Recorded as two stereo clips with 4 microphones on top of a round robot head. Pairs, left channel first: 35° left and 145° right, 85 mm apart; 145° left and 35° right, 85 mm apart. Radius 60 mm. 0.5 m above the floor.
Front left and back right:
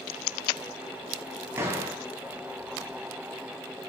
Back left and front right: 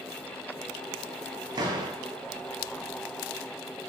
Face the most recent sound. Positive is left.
turn(degrees=-80)